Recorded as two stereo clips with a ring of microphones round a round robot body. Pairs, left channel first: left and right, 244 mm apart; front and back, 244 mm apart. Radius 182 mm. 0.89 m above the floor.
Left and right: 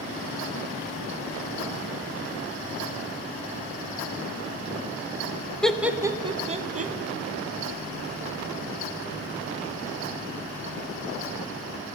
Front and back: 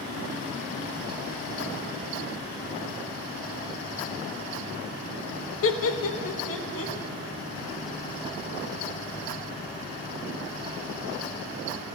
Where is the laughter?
5° left, 0.9 m; by 6.9 s 35° right, 1.4 m.